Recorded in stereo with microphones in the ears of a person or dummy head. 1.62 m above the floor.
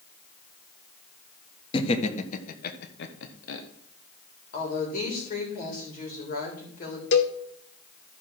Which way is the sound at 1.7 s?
30° left (ahead or behind).